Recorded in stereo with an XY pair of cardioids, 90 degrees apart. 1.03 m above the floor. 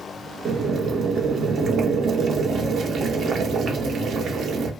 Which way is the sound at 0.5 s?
65° right.